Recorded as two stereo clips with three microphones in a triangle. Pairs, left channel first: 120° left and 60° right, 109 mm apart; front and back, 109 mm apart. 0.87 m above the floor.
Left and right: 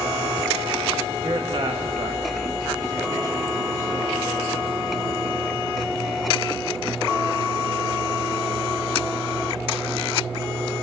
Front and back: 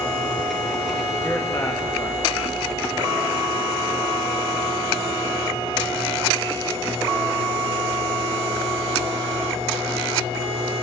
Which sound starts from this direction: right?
A man speaking, at 1.2 s.